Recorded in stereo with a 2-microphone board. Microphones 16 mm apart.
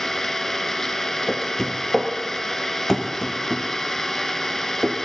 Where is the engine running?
20° left (ahead or behind), 1.2 m.